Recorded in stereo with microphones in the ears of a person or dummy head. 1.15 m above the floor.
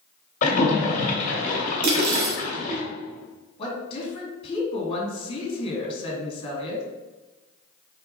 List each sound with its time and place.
0.4 s a splash: 50° left (ahead or behind), 1.7 m
1.8 s cutlery clinking: 50° right (ahead or behind), 0.8 m
3.6 s a woman speaking: 30° left (ahead or behind), 2 m